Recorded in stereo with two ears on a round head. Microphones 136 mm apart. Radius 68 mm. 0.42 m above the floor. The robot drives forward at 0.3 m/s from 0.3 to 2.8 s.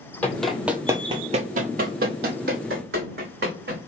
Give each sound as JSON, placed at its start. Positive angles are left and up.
{"t": 0.2, "sound": "running footsteps", "side_deg": 10, "distance_m": 0.9}